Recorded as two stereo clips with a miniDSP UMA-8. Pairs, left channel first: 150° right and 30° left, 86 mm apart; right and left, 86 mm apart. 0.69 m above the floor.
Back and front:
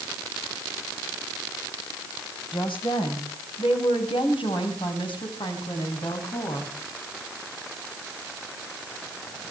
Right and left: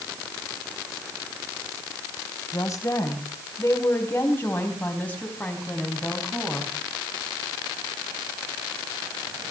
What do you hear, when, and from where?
2.5 s a woman speaking: 140° right, 3.5 m; by 6.7 s 175° right, 5 m